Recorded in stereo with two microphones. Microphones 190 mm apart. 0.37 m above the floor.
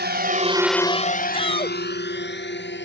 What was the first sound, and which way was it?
A drone, 60° right (ahead or behind).